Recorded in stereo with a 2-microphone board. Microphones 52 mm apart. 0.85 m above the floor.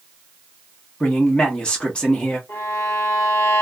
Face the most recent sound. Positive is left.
turn(degrees=60)  # may be behind; listen again after turning